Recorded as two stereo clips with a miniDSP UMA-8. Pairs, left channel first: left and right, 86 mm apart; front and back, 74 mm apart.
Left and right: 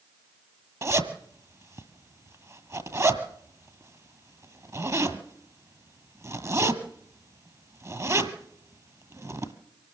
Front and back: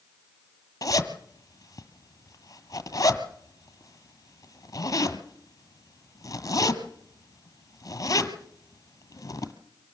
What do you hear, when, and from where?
0.8 s a zipper: 40° right, 1.7 m